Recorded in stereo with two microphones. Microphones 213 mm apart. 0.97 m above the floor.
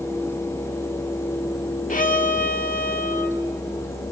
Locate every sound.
1.9 s a violin: 40° left (ahead or behind), 1.6 m